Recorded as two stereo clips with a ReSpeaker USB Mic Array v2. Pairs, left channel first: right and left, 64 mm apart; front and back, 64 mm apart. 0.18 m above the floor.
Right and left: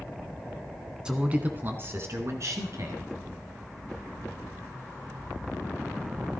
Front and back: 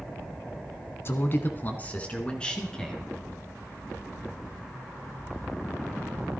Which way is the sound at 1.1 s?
20° left.